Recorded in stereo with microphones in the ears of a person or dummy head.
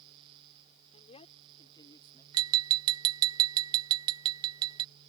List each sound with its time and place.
0.9 s a man speaking: 35° left (ahead or behind); by 2.2 s 20° left (ahead or behind)
2.3 s tapping: 25° right (ahead or behind)